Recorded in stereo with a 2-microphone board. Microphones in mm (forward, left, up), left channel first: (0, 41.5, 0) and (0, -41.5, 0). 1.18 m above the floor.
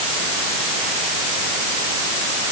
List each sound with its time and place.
Only background noise.